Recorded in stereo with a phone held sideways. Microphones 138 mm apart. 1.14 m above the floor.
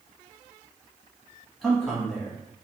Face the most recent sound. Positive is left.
turn(degrees=0)  # may be behind; listen again after turning